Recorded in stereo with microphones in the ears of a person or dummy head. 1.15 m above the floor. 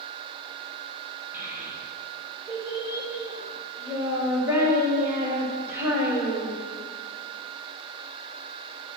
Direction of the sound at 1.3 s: 10° right (ahead or behind).